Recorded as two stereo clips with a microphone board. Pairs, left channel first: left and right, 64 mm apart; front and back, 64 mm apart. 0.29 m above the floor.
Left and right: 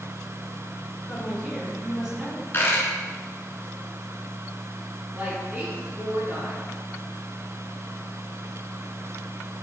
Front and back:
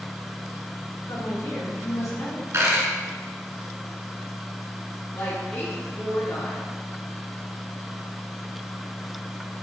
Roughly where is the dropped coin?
Behind left.